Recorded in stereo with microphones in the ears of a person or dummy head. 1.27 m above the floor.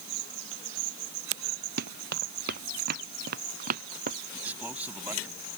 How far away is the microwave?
I don't hear a microwave.